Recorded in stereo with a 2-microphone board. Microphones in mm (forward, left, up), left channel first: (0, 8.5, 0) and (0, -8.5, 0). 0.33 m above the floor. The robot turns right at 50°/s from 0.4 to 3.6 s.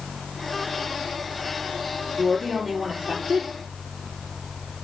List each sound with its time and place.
2.2 s a woman speaking: 175° right, 6 m; by 3.5 s 105° right, 6 m